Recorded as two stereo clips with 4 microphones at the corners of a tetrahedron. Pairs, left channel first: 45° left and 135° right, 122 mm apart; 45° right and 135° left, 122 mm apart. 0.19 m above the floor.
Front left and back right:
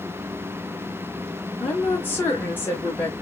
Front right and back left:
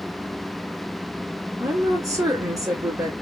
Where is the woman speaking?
105° left, 1.2 m.